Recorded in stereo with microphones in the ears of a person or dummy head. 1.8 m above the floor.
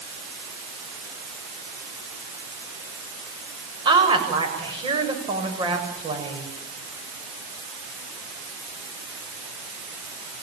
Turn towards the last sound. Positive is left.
turn(degrees=-25)  # may be behind; listen again after turning